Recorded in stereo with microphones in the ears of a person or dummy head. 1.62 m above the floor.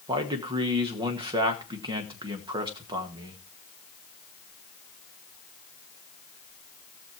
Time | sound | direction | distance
0.1 | a man speaking | 30° right (ahead or behind) | 1.7 m